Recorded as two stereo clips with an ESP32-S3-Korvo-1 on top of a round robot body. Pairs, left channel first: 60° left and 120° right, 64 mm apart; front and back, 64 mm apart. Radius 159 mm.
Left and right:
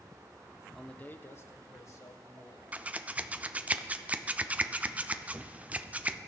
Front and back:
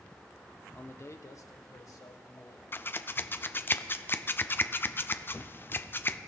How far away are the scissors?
About 0.6 m.